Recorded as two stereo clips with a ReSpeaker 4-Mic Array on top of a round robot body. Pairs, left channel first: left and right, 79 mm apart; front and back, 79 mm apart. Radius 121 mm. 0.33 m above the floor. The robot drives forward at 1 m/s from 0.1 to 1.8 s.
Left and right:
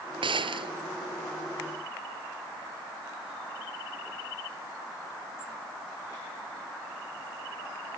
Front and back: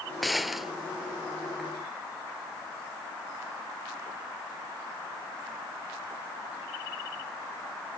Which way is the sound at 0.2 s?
90° right.